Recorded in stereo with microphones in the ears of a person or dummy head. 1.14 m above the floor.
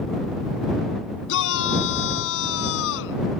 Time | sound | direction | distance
1.3 | a shout | 75° left (ahead or behind) | ?